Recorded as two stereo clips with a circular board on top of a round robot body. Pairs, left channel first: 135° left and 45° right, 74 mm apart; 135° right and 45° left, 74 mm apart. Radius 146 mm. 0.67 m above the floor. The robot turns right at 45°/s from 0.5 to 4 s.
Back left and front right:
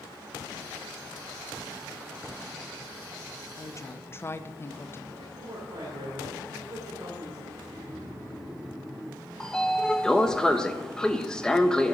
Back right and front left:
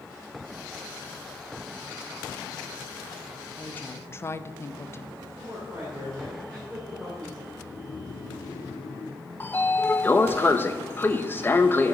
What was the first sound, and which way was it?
A woman speaking, 160° left.